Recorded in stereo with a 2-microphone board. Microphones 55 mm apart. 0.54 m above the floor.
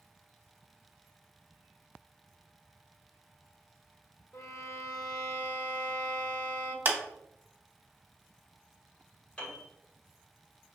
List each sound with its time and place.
4.3 s a violin: 70° left (ahead or behind), 1.0 m
6.8 s a clap: 40° right (ahead or behind), 0.8 m
9.4 s a piano: 25° left (ahead or behind), 1.7 m